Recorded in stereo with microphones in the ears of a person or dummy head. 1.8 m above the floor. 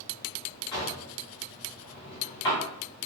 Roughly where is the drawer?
Left.